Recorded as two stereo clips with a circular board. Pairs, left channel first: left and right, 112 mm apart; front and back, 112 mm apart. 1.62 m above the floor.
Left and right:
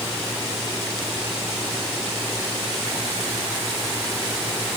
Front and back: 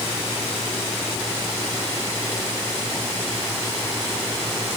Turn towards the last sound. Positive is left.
No sound to turn to.